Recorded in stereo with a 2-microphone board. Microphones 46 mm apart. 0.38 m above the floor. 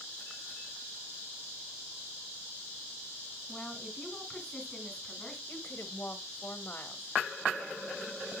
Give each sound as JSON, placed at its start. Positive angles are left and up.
{"t": 3.5, "sound": "a woman speaking", "side_deg": 15, "distance_m": 3.0}
{"t": 5.5, "sound": "a woman speaking", "side_deg": 45, "distance_m": 1.8}